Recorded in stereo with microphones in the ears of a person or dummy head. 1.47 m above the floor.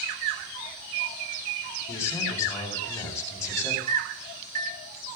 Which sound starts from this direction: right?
A microwave, at 3.9 s.